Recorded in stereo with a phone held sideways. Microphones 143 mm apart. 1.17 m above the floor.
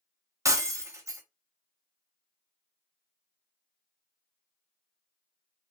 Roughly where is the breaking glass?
Right.